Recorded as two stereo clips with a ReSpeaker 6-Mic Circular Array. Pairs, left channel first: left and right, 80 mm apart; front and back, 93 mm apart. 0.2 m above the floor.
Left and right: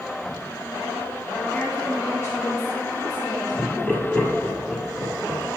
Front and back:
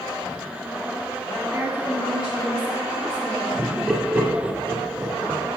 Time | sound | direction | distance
1.5 | a woman speaking | 150° left | 1.8 m
3.6 | laughter | 130° left | 1.3 m